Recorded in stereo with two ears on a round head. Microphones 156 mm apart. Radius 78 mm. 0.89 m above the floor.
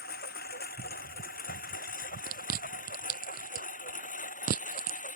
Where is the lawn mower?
60° left (ahead or behind); by 5.2 s 45° left (ahead or behind).